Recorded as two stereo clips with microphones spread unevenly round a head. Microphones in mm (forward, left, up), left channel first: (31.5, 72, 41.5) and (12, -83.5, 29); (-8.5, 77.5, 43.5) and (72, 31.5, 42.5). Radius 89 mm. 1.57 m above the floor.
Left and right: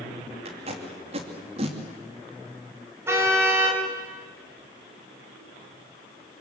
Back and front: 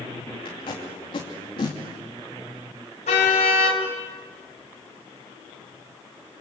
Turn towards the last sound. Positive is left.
turn(degrees=-175)